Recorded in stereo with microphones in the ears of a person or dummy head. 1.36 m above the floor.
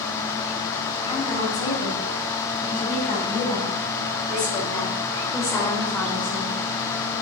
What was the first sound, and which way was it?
A woman speaking, 30° left (ahead or behind).